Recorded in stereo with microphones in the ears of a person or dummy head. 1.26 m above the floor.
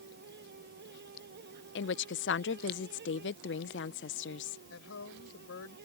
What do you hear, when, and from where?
0.0 s a fan: 65° right (ahead or behind)
1.8 s a woman speaking: 50° left (ahead or behind)
4.7 s a woman speaking: 75° left (ahead or behind)